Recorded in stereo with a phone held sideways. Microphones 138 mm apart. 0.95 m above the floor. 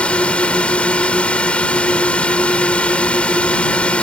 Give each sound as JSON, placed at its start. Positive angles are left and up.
{"t": 0.0, "sound": "a drone", "side_deg": 10}